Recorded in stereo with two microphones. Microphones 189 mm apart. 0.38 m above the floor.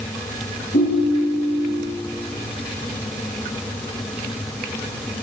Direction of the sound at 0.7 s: 70° left (ahead or behind).